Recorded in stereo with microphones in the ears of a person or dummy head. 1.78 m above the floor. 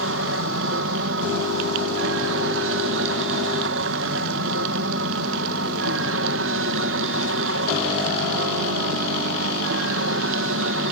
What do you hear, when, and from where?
0.0 s an aircraft: 60° right (ahead or behind)